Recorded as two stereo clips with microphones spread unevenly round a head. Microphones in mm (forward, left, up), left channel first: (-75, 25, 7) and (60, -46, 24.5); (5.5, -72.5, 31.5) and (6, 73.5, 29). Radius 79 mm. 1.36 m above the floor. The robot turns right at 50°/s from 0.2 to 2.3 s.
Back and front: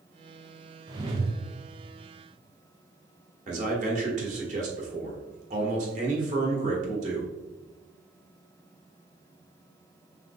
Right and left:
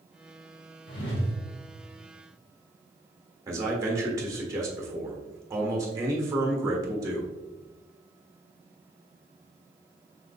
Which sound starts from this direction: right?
A whoosh, at 0.9 s.